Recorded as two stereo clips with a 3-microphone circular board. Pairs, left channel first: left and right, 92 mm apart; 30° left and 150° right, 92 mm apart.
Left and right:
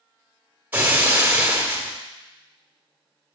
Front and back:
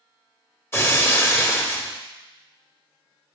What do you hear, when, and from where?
0.7 s breaking glass: 25° right, 1.3 m